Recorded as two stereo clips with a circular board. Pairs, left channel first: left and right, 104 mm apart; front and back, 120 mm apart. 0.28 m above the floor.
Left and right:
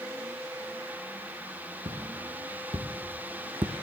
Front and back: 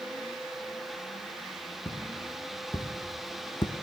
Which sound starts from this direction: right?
Footsteps, at 1.9 s.